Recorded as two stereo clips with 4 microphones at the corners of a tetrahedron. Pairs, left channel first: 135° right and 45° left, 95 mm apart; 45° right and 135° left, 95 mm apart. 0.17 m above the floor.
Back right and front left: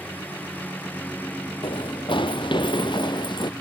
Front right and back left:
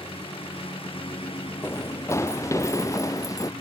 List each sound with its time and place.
0.0 s a lawn mower: 65° right
1.6 s running footsteps: 105° right; by 3.5 s 100° right